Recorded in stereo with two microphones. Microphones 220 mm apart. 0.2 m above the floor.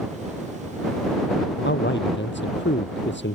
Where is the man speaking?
60° left (ahead or behind).